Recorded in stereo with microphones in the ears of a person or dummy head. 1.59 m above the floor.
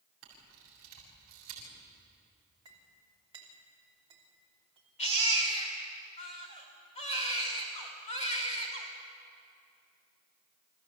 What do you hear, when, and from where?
0.2 s a camera shutter: 50° right (ahead or behind), 7 m
2.6 s a clink: 25° right (ahead or behind), 3 m
5.0 s a baby crying: 35° left (ahead or behind), 3 m